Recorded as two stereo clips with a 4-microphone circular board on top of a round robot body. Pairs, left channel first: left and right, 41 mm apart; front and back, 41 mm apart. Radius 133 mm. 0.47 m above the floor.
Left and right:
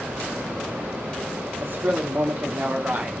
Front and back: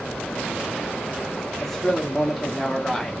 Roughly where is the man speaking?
Right.